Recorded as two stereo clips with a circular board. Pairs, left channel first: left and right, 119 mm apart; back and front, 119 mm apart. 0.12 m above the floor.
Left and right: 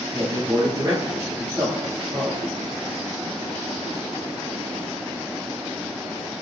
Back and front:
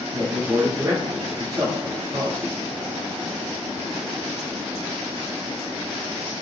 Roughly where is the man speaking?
Ahead right.